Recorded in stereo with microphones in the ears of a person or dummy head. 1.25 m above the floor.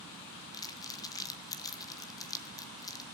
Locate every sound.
0.5 s crumpling: 20° left (ahead or behind), 1.6 m